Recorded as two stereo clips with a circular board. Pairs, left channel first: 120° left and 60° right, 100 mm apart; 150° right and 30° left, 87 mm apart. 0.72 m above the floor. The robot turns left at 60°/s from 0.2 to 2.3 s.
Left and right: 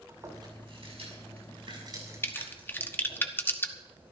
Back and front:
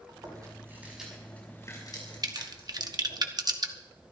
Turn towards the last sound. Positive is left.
turn(degrees=55)